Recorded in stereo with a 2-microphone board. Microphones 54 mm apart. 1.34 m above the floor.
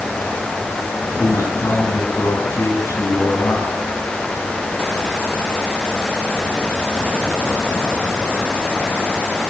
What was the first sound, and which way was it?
A man speaking, 75° left (ahead or behind).